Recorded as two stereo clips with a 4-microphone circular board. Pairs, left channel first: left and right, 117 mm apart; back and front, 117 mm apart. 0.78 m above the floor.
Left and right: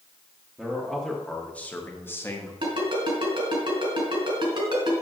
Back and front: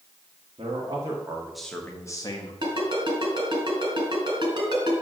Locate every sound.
0.6 s a man speaking: 10° right, 1.3 m; by 2.5 s 150° left, 1.3 m
2.6 s a ringtone: 50° right, 2.5 m